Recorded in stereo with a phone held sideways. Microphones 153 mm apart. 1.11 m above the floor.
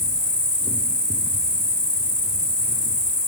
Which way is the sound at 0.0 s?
60° left (ahead or behind).